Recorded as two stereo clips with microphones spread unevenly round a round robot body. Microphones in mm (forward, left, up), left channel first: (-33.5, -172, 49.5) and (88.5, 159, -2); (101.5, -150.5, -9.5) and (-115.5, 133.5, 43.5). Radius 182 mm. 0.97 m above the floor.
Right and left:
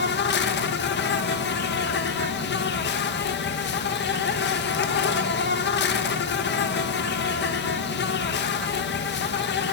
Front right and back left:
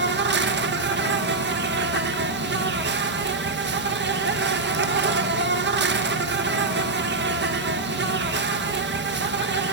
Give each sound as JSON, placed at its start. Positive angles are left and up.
{"t": 0.0, "sound": "an insect", "azimuth_deg": -170, "distance_m": 1.5}